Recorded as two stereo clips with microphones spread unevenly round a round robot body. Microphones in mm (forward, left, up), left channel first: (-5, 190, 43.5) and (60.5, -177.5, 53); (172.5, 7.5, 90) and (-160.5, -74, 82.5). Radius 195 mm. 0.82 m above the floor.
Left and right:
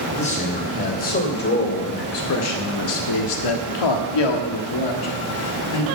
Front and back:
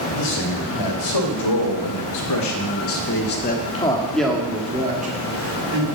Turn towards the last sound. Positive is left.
turn(degrees=140)